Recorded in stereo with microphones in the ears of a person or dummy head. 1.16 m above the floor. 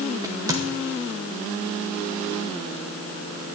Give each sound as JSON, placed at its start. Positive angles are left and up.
{"t": 0.2, "sound": "a crack", "side_deg": -20, "distance_m": 1.8}